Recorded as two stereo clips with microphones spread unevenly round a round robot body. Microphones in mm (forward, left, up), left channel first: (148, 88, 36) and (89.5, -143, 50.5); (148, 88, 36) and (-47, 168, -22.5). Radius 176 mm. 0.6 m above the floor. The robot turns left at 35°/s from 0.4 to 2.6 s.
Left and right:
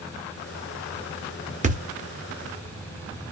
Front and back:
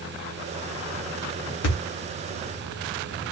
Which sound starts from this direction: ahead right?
A thud, at 1.6 s.